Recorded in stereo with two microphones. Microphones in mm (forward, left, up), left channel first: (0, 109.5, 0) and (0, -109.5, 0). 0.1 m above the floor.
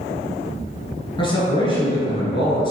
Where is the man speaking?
25° left (ahead or behind), 1.3 m.